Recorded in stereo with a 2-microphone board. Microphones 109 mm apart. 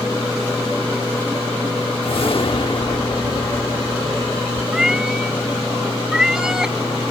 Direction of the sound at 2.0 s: 55° left (ahead or behind).